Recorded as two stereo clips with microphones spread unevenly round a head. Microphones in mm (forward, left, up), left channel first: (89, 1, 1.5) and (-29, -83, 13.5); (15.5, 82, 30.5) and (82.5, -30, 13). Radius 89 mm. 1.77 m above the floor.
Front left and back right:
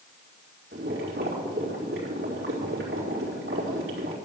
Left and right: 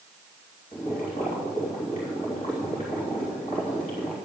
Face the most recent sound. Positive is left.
turn(degrees=180)